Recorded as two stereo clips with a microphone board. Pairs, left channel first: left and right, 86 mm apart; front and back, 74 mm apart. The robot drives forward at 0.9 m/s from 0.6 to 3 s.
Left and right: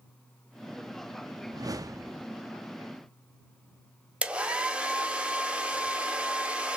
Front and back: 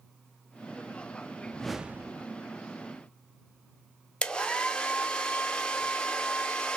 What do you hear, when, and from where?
1.5 s a whoosh: 60° right, 0.6 m; by 2.2 s 145° right, 0.7 m
4.2 s a hair dryer: 45° right, 0.6 m